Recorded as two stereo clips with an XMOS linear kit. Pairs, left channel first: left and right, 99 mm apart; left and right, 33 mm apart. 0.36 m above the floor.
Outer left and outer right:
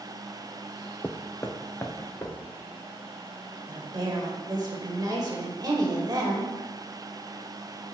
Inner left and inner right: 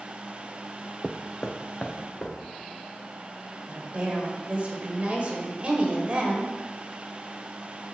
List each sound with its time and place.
1.0 s footsteps: 20° left (ahead or behind), 0.6 m; by 2.4 s 25° left (ahead or behind), 1.7 m
3.7 s a woman speaking: 40° right (ahead or behind), 1.3 m